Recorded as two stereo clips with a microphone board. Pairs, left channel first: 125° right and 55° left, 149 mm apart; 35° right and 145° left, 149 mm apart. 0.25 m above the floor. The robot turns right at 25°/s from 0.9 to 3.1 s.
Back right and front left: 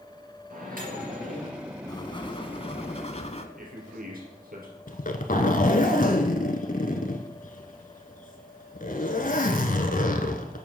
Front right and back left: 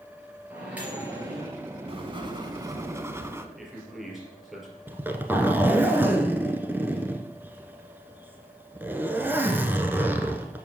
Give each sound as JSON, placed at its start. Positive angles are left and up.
{"t": 0.5, "sound": "a microwave", "azimuth_deg": 65, "distance_m": 3.5}
{"t": 1.9, "sound": "writing", "azimuth_deg": -175, "distance_m": 0.7}
{"t": 3.6, "sound": "a man speaking", "azimuth_deg": 55, "distance_m": 3.5}
{"t": 4.9, "sound": "a zipper", "azimuth_deg": -140, "distance_m": 1.0}